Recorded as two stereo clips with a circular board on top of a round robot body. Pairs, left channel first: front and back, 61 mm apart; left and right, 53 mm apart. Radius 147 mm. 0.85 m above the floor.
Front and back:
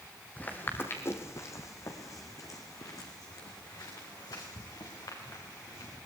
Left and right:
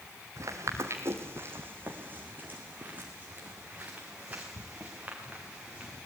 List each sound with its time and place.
0.4 s footsteps: 65° right, 1.6 m; by 6.0 s 20° right, 6 m